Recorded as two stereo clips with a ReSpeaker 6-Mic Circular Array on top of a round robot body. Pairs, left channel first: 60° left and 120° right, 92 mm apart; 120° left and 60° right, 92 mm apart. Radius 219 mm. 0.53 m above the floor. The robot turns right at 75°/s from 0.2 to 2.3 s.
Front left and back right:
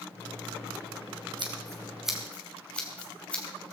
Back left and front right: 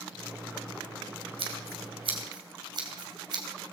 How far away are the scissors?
About 2.5 m.